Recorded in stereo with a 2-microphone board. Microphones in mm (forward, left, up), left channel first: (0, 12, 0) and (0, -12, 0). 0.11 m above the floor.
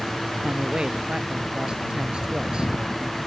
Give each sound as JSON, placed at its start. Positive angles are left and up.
{"t": 0.4, "sound": "a man speaking", "side_deg": -40}